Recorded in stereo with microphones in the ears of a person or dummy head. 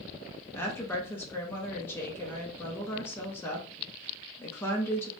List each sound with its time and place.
0.5 s a woman speaking: 15° left (ahead or behind), 0.6 m